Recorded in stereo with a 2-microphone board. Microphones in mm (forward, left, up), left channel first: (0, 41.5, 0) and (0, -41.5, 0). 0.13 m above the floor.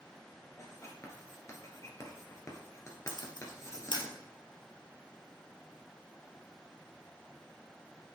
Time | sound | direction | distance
0.6 | writing | 35° left (ahead or behind) | 1.8 m
3.1 | a camera shutter | 65° left (ahead or behind) | 1.5 m